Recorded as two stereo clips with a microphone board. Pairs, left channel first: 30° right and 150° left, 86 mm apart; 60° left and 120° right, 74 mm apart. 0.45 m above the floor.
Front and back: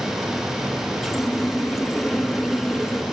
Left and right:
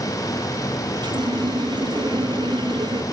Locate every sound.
1.0 s a running tap: 120° right, 3.5 m